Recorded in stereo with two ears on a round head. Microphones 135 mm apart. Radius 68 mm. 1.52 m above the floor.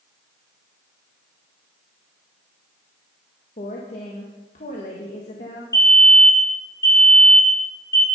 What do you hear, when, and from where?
3.6 s a woman speaking: 50° left (ahead or behind), 1.5 m
5.7 s a fire alarm: 20° left (ahead or behind), 3.5 m